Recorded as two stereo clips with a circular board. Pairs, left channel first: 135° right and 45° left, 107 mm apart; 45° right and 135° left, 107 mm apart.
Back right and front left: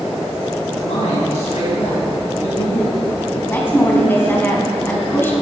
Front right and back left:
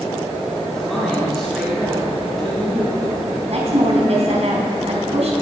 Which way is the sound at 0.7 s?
135° right.